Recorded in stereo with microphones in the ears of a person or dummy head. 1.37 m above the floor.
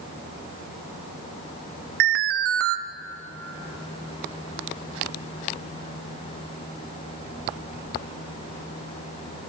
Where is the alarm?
45° right (ahead or behind), 1.0 m.